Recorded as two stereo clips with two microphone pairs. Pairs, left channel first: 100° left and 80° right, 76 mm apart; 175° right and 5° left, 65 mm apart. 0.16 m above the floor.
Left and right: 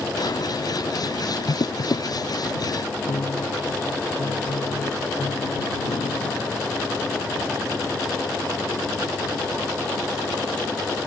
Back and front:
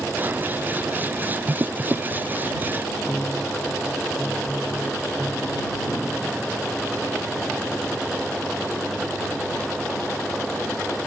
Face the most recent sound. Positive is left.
turn(degrees=105)